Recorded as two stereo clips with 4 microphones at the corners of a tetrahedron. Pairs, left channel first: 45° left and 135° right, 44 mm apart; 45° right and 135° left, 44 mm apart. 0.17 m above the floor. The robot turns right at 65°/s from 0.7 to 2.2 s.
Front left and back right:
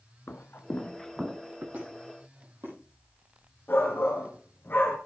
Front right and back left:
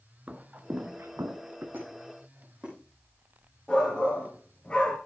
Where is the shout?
15° left, 2.5 m.